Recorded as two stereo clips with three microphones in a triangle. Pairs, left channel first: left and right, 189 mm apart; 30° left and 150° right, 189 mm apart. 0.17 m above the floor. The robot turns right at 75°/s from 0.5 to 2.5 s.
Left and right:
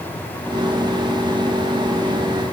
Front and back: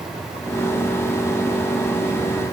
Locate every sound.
Only background noise.